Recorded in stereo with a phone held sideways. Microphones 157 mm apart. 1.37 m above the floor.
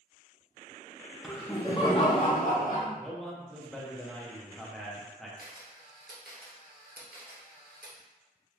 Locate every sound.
1.2 s laughter: centre (ahead or behind), 0.5 m; by 2.9 s 60° left (ahead or behind), 1.0 m
3.0 s a man speaking: 5° left (ahead or behind), 0.7 m
5.4 s a camera shutter: 70° right (ahead or behind), 0.7 m